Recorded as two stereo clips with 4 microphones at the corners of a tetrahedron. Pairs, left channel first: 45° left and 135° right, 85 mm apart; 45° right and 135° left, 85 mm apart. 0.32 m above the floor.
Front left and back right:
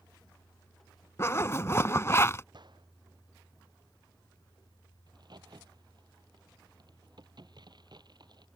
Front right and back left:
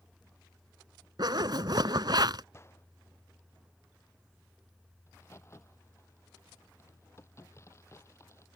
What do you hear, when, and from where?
1.2 s a zipper: 105° left
2.5 s a gunshot: 105° right
5.1 s a crack: 100° right